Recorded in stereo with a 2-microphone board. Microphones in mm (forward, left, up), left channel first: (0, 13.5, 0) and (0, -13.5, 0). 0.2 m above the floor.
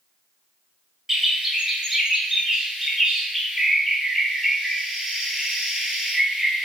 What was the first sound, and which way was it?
A bird, 15° right (ahead or behind).